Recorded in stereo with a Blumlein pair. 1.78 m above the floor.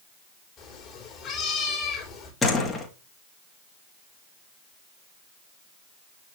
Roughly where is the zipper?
I don't hear a zipper.